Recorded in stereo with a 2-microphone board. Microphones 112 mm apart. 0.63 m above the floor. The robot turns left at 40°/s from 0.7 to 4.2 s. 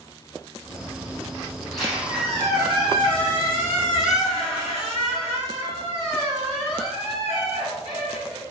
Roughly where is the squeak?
Ahead.